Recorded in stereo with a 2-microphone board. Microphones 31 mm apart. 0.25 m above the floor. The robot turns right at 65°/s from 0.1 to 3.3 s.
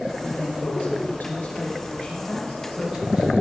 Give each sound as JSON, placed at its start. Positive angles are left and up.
{"t": 0.2, "sound": "a man speaking", "azimuth_deg": 35, "distance_m": 6.5}